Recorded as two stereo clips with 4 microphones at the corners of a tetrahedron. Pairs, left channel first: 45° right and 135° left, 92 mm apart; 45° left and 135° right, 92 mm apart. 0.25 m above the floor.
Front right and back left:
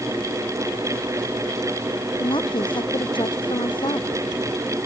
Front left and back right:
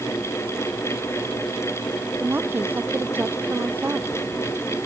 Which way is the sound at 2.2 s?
70° right.